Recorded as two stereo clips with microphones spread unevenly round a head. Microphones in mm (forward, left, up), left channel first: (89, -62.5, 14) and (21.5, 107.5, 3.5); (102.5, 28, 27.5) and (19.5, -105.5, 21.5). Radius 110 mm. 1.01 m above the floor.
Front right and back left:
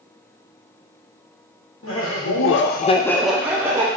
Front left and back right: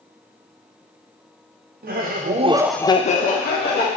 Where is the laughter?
100° right, 1.3 m; by 3.9 s 40° left, 1.6 m.